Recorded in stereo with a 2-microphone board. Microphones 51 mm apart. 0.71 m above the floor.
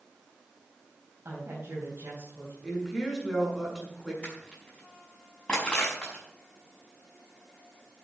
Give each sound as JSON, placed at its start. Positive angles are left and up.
{"t": 1.2, "sound": "a woman speaking", "side_deg": -55, "distance_m": 4.5}
{"t": 2.6, "sound": "a woman speaking", "side_deg": 0, "distance_m": 7.0}
{"t": 4.2, "sound": "crushing", "side_deg": 20, "distance_m": 5.5}